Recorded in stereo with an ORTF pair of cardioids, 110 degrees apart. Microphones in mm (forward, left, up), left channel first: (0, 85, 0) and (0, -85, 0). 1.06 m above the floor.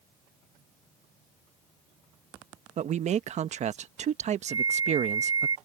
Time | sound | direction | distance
2.8 | a man speaking | 45° right | ?
4.5 | a flute | 25° right | ?